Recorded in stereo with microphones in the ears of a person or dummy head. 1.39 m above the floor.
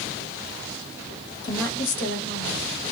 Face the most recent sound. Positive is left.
turn(degrees=55)  # may be behind; listen again after turning